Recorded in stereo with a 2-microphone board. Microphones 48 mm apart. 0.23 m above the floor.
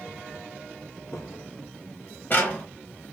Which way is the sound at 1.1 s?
80° left.